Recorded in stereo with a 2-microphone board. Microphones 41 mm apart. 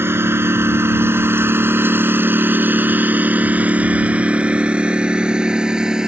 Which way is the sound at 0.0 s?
75° right (ahead or behind).